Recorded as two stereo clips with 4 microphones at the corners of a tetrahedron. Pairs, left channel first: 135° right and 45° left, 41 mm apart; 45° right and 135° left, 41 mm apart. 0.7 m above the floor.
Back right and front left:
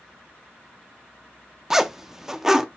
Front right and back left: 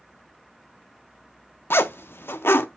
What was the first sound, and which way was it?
A zipper, 35° right.